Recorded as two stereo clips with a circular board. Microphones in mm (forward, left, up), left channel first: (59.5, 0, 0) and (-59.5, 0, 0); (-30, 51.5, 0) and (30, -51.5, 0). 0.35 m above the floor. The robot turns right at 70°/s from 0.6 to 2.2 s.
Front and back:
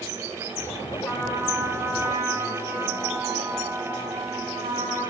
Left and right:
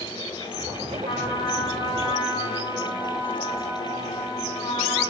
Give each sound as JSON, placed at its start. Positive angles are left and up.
{"t": 1.1, "sound": "a trumpet", "azimuth_deg": 95, "distance_m": 3.0}